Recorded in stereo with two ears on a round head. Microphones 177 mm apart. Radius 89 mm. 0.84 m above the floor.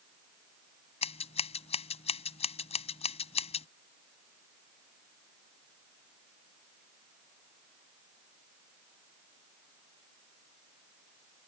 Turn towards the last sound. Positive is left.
turn(degrees=30)  # may be behind; listen again after turning